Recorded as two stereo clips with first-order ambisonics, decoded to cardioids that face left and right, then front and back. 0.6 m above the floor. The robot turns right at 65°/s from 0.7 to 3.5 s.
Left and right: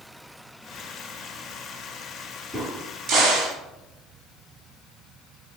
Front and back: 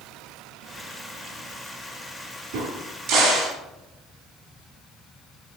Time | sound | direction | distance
2.5 | a crack | 170° right | 1.2 m